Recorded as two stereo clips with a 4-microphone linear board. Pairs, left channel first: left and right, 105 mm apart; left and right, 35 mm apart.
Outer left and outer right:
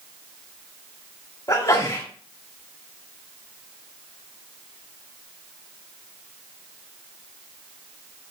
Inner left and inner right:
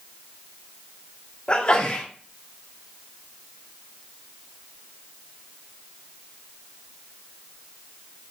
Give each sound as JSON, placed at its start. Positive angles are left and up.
{"t": 1.5, "sound": "a sneeze", "side_deg": 35, "distance_m": 1.7}